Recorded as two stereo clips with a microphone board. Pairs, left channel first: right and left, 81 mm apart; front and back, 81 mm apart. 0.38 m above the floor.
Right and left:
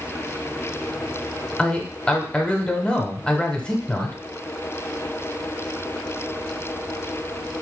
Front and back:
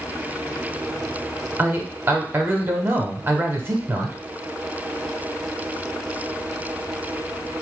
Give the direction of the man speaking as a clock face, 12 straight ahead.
5 o'clock.